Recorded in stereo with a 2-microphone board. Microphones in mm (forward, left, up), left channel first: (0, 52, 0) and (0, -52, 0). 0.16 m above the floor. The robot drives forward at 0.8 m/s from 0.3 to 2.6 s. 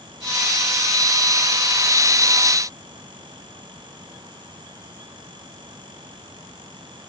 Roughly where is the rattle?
I don't hear a rattle.